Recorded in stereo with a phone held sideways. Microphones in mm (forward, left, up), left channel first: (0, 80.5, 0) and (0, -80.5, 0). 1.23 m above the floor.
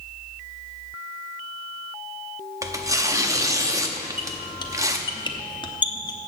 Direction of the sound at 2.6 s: 20° right (ahead or behind).